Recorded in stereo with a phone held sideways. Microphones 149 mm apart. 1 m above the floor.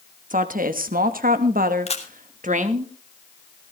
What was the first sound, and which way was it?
A woman speaking, 65° right (ahead or behind).